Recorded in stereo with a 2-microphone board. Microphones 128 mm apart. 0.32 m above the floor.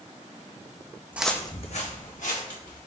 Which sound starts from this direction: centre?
Footsteps, at 1.1 s.